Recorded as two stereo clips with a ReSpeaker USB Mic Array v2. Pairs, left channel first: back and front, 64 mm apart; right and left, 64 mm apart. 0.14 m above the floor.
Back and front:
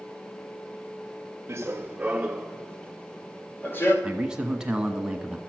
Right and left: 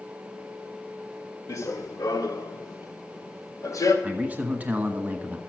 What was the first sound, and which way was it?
Running footsteps, 50° right.